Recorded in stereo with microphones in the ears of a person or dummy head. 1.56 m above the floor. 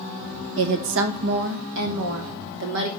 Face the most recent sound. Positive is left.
turn(degrees=-60)  # may be behind; listen again after turning